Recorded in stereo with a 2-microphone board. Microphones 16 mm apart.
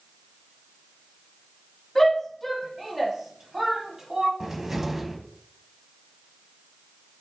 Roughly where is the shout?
Centre.